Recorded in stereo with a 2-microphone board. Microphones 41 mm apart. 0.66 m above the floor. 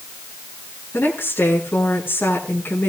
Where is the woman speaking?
75° left (ahead or behind), 8 m.